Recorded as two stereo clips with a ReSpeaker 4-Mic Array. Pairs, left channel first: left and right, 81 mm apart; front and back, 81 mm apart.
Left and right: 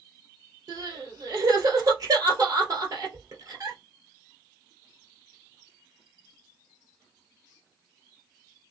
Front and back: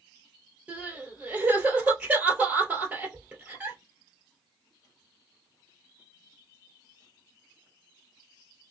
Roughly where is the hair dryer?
I don't hear a hair dryer.